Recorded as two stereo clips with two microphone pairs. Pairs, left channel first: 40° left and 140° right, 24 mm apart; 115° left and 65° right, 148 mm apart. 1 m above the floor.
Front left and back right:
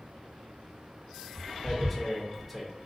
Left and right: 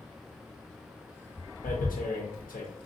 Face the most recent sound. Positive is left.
turn(degrees=130)